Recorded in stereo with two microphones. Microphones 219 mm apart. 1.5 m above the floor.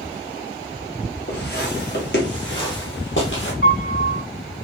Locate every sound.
1.3 s footsteps: 50° left (ahead or behind), 2 m; by 3.5 s 65° left (ahead or behind), 3 m
3.6 s a piano: 70° left (ahead or behind), 4 m